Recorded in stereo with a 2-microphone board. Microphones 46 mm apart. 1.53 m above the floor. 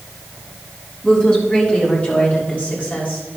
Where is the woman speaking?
20° left (ahead or behind), 4 m; by 3.2 s 35° left (ahead or behind), 6 m.